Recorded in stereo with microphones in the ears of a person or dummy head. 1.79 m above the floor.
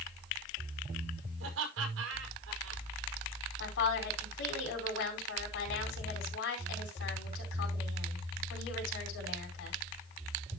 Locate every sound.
1.4 s laughter: 80° right, 5.5 m
3.6 s a woman speaking: 75° left (ahead or behind), 5 m